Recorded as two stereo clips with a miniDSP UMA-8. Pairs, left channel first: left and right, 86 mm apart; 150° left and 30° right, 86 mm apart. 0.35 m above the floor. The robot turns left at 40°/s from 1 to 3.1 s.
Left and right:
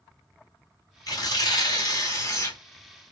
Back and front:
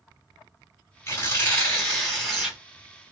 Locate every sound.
1.1 s tearing paper: 115° left, 2 m; by 2.6 s 55° left, 2 m